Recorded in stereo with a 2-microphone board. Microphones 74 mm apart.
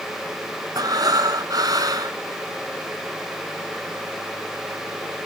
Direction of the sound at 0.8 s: 60° right (ahead or behind).